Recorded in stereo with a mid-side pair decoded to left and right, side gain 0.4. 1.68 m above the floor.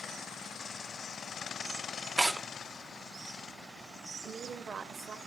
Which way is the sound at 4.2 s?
50° right.